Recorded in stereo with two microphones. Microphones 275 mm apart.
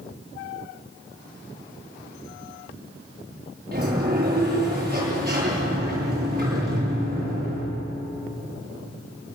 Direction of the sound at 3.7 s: 35° right (ahead or behind).